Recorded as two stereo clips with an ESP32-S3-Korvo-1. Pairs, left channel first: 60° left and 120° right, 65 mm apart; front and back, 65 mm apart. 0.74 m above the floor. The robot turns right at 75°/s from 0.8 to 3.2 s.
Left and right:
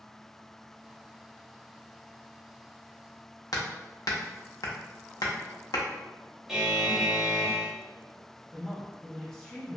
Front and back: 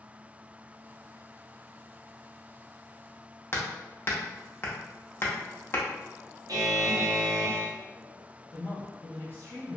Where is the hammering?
50° left, 0.6 m.